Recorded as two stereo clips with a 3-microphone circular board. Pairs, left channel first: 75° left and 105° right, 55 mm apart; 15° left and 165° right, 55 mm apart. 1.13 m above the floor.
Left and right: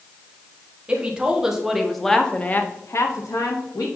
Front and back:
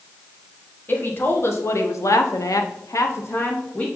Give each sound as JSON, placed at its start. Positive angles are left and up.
{"t": 0.9, "sound": "a woman speaking", "azimuth_deg": -35, "distance_m": 1.5}